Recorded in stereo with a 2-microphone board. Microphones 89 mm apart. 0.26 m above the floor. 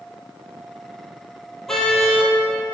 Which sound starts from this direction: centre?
A car horn, at 1.7 s.